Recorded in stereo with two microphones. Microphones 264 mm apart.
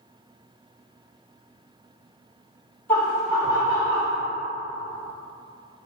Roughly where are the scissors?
No scissors in this recording.